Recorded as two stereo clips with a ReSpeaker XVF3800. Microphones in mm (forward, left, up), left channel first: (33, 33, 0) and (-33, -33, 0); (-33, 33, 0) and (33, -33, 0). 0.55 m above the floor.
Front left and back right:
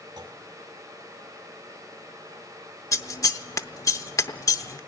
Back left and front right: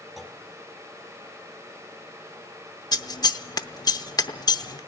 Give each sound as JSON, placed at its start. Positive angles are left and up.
{"t": 0.2, "sound": "a clunk", "azimuth_deg": -130, "distance_m": 1.9}
{"t": 2.9, "sound": "scissors", "azimuth_deg": 95, "distance_m": 0.7}